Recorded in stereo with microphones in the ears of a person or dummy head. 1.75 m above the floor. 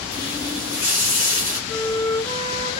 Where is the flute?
20° left (ahead or behind), 3 m.